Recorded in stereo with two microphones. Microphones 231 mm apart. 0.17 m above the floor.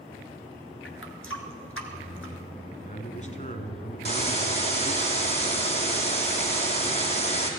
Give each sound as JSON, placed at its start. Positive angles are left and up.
{"t": 0.8, "sound": "a running tap", "side_deg": 60, "distance_m": 1.7}
{"t": 2.7, "sound": "a man speaking", "side_deg": 30, "distance_m": 1.3}
{"t": 4.0, "sound": "a hiss", "side_deg": 25, "distance_m": 2.5}